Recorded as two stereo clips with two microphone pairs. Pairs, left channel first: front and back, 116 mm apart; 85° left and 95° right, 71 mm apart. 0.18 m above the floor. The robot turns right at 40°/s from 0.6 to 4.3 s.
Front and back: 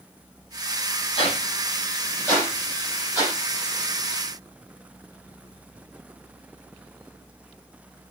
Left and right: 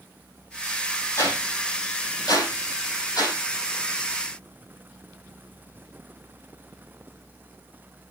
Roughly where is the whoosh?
Ahead left.